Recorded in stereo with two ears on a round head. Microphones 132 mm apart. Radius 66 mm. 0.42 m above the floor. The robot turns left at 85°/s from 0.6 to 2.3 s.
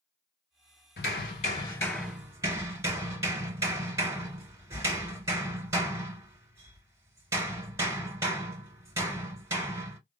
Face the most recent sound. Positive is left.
turn(degrees=-20)